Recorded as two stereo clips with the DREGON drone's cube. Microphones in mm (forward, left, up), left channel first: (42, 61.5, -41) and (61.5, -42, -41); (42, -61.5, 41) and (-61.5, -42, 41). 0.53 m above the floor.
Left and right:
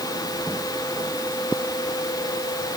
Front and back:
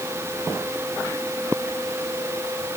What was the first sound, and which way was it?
Only background noise.